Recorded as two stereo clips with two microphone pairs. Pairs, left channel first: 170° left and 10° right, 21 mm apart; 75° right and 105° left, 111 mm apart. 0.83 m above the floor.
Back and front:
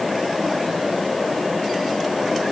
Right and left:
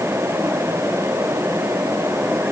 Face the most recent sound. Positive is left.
No sound to turn to.